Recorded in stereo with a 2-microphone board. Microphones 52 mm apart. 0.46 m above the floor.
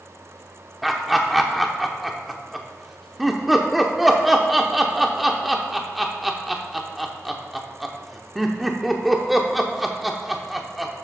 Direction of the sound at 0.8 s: Centre (ahead or behind).